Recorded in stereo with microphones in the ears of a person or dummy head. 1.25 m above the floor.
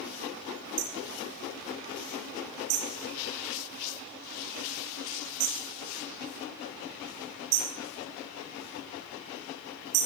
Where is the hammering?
75° right (ahead or behind), 6.5 m.